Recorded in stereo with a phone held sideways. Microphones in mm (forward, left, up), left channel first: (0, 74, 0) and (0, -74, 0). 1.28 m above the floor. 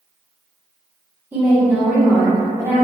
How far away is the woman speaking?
About 1.3 m.